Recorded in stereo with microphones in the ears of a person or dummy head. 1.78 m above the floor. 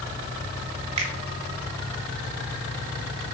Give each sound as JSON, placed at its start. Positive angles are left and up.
{"t": 1.0, "sound": "a finger snap", "side_deg": -40, "distance_m": 1.2}